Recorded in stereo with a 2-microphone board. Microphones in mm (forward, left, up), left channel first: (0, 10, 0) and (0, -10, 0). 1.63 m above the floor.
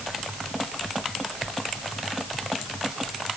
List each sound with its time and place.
Only background noise.